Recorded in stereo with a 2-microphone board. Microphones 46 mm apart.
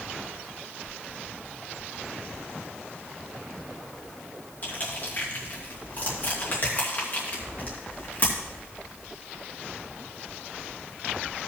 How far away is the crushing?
About 2.5 m.